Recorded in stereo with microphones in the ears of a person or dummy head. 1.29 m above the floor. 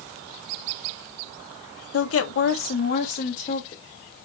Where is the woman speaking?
65° left (ahead or behind), 1.0 m; by 3.8 s 30° left (ahead or behind), 1.5 m.